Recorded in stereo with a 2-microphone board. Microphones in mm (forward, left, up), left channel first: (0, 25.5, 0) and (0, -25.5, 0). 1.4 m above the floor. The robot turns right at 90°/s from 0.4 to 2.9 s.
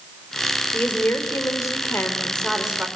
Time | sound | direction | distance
0.7 | a woman speaking | 20° left | 4 m